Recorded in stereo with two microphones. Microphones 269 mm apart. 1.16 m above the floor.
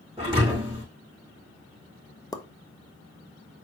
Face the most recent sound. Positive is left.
turn(degrees=15)  # may be behind; listen again after turning